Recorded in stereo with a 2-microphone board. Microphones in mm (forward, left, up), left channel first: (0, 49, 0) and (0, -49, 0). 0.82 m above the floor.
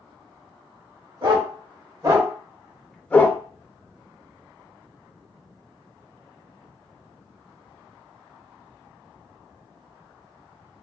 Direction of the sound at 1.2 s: 50° right (ahead or behind).